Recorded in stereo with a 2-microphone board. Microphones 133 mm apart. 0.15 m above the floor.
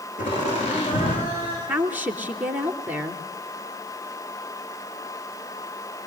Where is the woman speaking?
10° right (ahead or behind), 2.5 m.